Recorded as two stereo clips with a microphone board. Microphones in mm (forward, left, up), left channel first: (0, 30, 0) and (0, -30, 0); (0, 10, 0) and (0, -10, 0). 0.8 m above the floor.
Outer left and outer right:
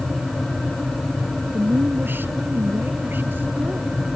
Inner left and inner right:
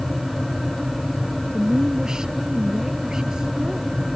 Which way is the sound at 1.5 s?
35° right (ahead or behind).